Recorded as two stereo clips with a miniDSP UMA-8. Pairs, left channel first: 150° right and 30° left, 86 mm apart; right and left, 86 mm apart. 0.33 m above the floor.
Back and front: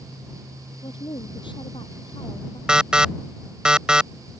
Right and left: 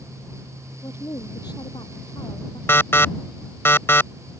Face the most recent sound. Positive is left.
turn(degrees=-45)